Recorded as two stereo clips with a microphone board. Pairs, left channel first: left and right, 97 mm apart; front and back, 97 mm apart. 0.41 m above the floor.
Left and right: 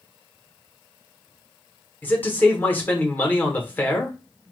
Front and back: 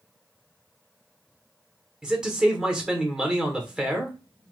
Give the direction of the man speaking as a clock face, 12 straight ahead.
8 o'clock.